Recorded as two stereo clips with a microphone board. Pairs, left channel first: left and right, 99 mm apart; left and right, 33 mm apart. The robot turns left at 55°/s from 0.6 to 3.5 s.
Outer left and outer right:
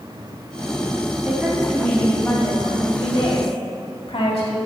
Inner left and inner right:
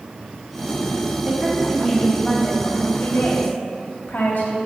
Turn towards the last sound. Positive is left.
turn(degrees=80)